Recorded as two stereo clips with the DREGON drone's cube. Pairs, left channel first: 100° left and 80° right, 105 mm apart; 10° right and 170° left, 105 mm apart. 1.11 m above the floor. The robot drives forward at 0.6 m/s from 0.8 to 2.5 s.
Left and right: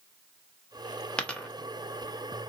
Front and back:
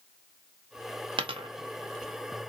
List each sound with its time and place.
1.2 s a dropped coin: straight behind, 0.6 m